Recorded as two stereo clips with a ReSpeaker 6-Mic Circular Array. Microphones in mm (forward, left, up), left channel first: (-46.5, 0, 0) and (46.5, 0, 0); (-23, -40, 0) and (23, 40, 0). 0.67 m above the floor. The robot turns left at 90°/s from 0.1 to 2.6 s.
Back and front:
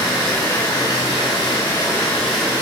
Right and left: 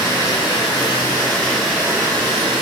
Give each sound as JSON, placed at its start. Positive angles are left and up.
{"t": 0.0, "sound": "running water", "azimuth_deg": -70, "distance_m": 1.6}